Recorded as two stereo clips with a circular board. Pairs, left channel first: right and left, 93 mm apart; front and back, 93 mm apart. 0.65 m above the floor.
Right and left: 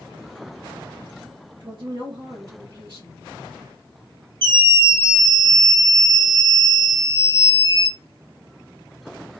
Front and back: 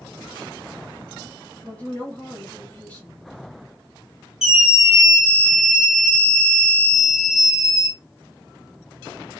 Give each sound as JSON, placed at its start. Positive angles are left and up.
{"t": 1.6, "sound": "a woman speaking", "azimuth_deg": 70, "distance_m": 1.8}
{"t": 4.4, "sound": "a scream", "azimuth_deg": 95, "distance_m": 1.1}